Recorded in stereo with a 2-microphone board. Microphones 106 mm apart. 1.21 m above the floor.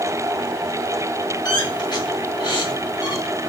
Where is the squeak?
45° left (ahead or behind), 1.3 m.